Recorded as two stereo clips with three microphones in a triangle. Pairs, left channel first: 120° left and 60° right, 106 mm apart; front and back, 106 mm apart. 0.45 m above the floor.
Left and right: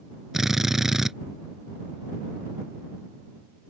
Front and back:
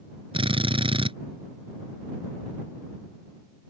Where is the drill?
145° right.